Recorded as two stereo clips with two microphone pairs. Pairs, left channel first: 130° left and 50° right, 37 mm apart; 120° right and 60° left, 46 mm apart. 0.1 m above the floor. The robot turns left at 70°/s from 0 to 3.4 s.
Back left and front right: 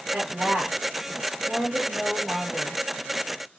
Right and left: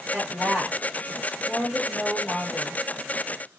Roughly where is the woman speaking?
Ahead.